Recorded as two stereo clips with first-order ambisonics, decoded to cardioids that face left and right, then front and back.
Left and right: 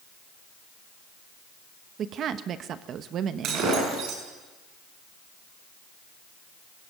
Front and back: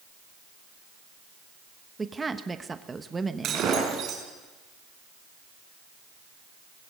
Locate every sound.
2.0 s a woman speaking: 110° right, 1.0 m
3.4 s breaking glass: 135° right, 7 m